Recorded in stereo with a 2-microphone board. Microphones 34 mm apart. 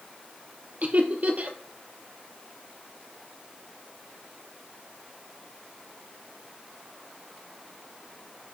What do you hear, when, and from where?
0.8 s laughter: 50° right (ahead or behind), 2.5 m